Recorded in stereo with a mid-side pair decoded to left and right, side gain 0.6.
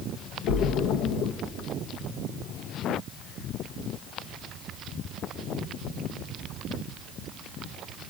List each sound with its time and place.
0.5 s a splash: 70° left, 1.1 m